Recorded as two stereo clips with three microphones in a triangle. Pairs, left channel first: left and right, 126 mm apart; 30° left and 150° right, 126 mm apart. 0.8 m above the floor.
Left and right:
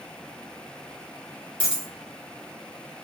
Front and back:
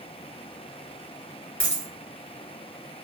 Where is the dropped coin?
45° right, 1.8 m.